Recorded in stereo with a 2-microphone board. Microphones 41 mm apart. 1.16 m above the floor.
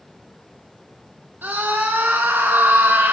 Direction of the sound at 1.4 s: 60° right (ahead or behind).